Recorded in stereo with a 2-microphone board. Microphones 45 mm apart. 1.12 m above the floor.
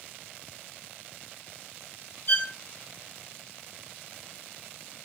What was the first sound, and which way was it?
A violin, 55° left (ahead or behind).